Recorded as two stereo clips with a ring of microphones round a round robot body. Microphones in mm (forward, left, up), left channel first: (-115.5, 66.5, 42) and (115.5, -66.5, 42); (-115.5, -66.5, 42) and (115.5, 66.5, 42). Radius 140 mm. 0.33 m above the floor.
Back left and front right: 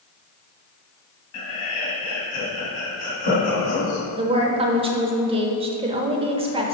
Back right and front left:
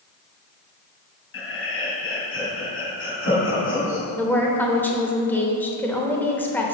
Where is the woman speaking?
75° right, 0.9 m.